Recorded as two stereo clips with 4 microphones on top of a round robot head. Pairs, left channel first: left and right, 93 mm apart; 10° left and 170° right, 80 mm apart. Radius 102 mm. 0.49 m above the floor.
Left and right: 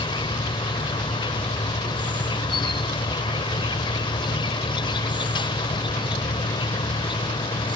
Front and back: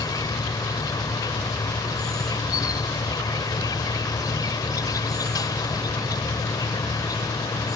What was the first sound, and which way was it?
An insect, 55° left.